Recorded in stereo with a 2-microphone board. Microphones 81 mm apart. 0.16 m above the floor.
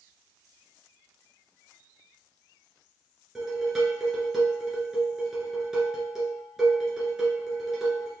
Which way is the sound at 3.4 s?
5° right (ahead or behind).